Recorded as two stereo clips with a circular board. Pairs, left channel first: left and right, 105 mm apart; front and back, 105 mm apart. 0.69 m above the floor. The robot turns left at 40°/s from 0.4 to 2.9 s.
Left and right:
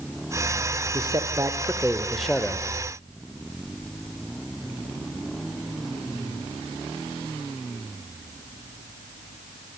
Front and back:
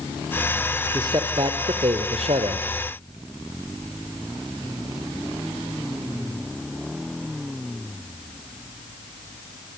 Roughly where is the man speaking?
Behind right.